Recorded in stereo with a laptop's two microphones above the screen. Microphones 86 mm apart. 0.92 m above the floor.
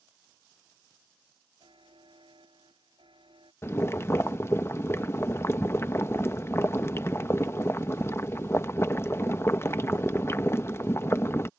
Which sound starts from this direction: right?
A buzzer, at 1.6 s.